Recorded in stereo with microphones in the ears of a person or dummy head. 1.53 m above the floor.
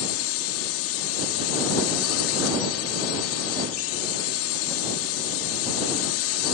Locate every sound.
0.0 s a drone: 85° left